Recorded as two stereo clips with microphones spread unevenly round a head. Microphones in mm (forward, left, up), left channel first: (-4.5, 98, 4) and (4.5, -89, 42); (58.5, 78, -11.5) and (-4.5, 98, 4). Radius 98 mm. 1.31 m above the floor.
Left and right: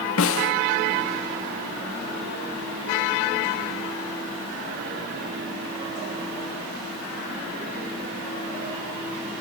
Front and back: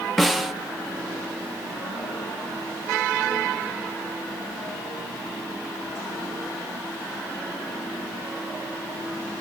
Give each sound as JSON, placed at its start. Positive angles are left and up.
{"t": 0.2, "sound": "a snare drum", "azimuth_deg": 75, "distance_m": 0.8}